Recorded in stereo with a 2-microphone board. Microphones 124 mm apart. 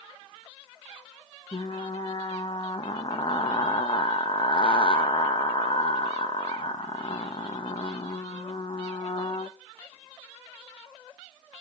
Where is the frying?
45° left (ahead or behind), 0.9 m.